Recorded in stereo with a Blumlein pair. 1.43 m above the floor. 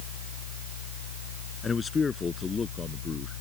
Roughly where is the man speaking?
Ahead.